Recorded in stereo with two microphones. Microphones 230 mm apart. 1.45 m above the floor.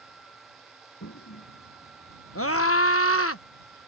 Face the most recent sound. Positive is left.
turn(degrees=75)  # may be behind; listen again after turning